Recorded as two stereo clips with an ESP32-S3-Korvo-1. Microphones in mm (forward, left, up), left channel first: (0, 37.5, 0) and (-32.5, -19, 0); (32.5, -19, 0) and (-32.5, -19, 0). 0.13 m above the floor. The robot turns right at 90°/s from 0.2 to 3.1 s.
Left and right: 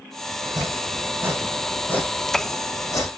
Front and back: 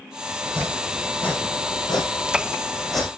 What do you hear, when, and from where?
0.4 s chopping: 140° right, 7 m; by 3.1 s 100° left, 7 m